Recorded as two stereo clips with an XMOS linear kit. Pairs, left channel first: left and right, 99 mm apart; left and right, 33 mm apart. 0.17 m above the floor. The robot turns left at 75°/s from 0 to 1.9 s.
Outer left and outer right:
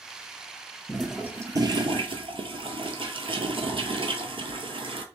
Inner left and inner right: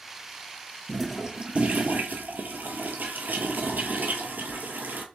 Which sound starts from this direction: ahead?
A toilet flushing, at 0.9 s.